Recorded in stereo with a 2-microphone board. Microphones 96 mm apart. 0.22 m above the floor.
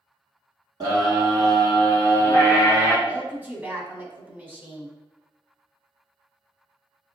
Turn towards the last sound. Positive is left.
turn(degrees=-20)  # may be behind; listen again after turning